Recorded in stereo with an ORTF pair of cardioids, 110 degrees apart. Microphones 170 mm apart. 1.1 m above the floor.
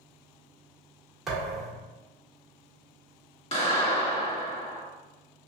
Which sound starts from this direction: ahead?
A thud, at 1.3 s.